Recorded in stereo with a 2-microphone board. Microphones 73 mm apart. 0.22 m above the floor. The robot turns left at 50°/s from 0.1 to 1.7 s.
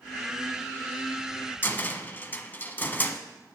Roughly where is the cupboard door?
Left.